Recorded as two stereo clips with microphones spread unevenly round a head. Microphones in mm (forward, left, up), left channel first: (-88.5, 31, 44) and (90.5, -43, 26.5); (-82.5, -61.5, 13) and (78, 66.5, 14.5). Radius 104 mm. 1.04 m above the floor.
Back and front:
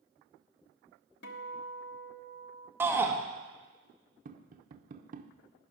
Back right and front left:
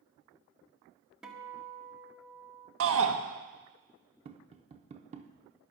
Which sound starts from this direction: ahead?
Tapping, at 4.2 s.